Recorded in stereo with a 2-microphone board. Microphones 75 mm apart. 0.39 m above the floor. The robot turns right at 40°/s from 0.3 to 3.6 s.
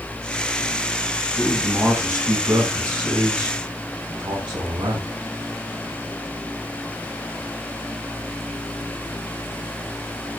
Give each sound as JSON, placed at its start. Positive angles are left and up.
{"t": 1.4, "sound": "a man speaking", "azimuth_deg": 170, "distance_m": 3.5}